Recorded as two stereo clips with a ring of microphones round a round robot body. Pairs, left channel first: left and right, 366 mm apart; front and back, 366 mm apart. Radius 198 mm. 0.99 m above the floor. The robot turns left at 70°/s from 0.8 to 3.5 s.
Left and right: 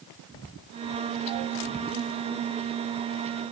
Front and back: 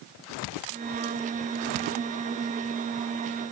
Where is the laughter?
I don't hear laughter.